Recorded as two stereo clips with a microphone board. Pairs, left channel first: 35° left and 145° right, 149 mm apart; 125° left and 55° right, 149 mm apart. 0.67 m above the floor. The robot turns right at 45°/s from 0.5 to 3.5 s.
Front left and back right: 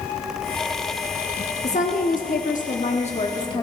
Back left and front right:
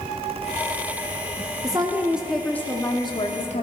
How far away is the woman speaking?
About 1.0 m.